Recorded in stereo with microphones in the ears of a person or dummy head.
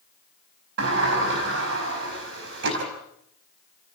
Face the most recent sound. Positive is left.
turn(degrees=-60)  # may be behind; listen again after turning